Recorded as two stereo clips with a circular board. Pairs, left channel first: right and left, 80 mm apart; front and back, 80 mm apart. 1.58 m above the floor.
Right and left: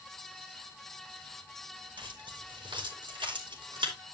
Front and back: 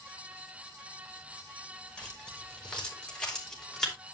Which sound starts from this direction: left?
Keys jangling, at 2.0 s.